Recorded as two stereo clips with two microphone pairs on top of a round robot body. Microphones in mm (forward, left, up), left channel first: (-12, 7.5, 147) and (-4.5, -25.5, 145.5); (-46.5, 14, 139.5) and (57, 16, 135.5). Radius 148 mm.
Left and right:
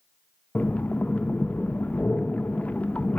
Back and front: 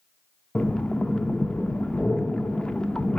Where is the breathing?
100° left, 0.7 m.